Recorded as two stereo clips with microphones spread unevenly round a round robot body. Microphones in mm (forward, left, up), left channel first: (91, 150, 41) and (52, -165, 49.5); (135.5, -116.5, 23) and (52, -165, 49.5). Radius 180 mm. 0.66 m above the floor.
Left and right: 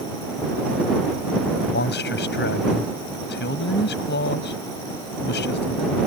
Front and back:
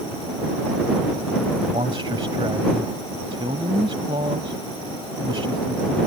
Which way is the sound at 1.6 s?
145° left.